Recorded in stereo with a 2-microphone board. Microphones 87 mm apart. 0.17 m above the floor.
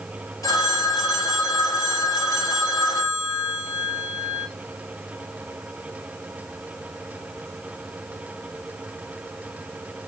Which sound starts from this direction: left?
A phone ringing, at 0.4 s.